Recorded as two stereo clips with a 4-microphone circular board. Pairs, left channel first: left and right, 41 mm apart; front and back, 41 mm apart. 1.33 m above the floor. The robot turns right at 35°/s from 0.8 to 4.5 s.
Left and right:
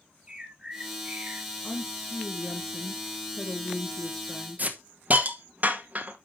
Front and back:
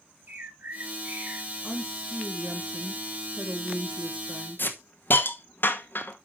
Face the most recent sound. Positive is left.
turn(degrees=-40)